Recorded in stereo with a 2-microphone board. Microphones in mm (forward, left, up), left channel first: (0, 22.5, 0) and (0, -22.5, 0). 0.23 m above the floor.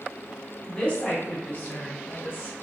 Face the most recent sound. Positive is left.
turn(degrees=45)  # may be behind; listen again after turning